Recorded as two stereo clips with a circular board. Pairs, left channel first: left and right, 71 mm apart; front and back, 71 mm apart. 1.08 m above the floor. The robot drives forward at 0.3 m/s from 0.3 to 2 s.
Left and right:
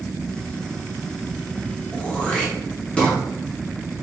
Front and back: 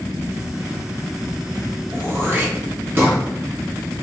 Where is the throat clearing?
155° left, 0.6 m.